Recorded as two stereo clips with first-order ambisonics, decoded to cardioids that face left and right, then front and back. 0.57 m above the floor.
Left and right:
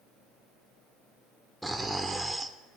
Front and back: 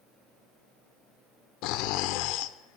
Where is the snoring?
5° right, 0.7 m.